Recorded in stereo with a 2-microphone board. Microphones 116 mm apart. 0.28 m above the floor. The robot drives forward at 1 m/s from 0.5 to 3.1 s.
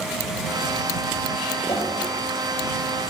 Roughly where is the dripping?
Left.